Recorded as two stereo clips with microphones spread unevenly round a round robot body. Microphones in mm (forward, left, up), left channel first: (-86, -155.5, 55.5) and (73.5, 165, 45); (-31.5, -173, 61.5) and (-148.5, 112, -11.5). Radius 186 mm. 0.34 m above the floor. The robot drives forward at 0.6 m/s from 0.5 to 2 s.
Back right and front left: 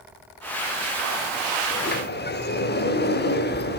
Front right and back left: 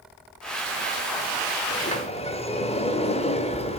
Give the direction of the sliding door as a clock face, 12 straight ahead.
4 o'clock.